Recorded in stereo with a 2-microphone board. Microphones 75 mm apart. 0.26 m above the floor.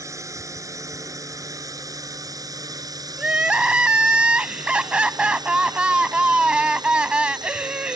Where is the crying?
15° right (ahead or behind).